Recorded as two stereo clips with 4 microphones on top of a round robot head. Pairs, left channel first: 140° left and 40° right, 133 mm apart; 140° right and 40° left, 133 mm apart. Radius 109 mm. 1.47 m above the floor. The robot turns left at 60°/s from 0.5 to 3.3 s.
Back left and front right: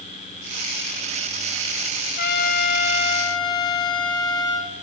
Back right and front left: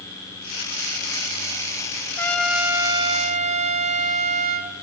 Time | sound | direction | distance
2.2 | a trumpet | 145° left | 1.7 m